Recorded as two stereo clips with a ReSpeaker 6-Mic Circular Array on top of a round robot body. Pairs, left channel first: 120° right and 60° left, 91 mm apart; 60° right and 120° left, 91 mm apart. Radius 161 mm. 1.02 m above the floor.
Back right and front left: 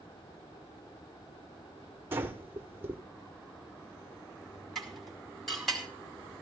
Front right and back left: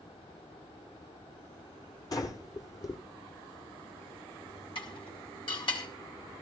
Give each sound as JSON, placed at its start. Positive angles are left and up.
{"t": 2.1, "sound": "breathing", "azimuth_deg": -10, "distance_m": 1.3}
{"t": 4.8, "sound": "dishes clattering", "azimuth_deg": -35, "distance_m": 4.0}